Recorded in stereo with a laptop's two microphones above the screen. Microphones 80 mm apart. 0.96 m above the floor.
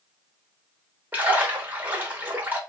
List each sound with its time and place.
1.1 s a splash: 25° right (ahead or behind), 0.8 m